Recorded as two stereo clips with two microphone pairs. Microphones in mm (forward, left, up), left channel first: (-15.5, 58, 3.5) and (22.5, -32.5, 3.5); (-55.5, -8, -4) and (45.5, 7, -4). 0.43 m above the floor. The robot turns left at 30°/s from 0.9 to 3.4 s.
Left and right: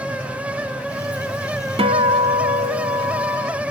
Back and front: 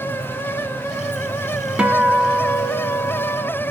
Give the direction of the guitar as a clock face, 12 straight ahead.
2 o'clock.